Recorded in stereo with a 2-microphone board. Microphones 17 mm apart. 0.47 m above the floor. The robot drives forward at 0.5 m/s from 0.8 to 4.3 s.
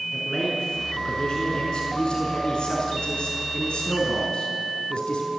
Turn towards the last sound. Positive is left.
turn(degrees=65)  # may be behind; listen again after turning